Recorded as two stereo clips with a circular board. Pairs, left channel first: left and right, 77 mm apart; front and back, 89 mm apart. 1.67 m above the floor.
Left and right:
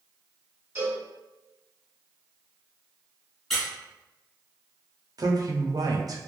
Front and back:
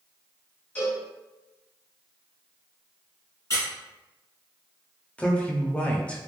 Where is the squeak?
10° left, 1.3 m.